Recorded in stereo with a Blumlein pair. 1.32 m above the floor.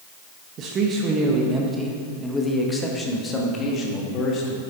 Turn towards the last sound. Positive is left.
turn(degrees=30)